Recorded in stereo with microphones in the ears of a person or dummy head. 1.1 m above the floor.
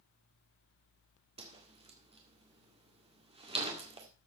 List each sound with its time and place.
1.4 s a whoosh: 30° right (ahead or behind), 1.8 m